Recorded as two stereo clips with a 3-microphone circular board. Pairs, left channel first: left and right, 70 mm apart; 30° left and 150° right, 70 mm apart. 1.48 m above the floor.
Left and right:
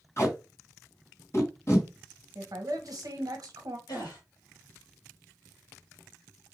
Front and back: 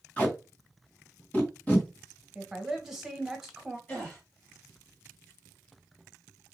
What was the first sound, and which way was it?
Tape being pulled, 90° left.